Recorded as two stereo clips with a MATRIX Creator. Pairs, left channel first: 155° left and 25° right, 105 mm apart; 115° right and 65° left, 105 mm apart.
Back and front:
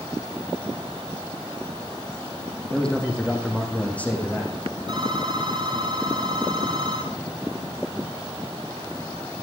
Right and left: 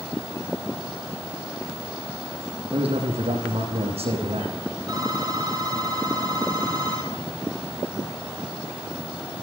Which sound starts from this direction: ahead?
A phone ringing, at 4.9 s.